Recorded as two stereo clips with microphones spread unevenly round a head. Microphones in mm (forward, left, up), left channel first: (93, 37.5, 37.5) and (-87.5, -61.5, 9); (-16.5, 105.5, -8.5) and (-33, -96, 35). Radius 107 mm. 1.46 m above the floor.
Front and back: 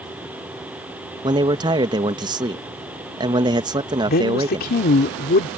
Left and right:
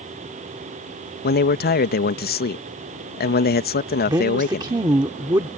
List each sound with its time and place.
1.2 s a man speaking: 135° left
4.1 s a woman speaking: 20° right